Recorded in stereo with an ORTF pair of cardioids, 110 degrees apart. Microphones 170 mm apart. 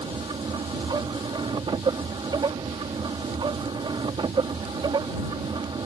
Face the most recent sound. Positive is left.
turn(degrees=-30)